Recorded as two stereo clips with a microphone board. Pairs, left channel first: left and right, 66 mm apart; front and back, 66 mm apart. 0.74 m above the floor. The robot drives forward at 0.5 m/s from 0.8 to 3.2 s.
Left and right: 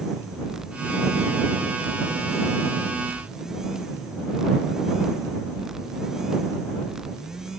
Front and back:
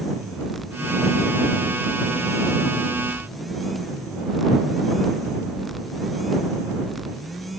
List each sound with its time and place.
Only background noise.